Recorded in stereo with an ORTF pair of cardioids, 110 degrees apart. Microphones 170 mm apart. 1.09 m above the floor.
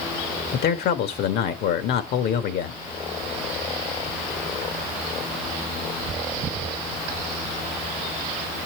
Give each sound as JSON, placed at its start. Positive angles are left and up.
{"t": 0.5, "sound": "a man speaking", "azimuth_deg": 70, "distance_m": 1.5}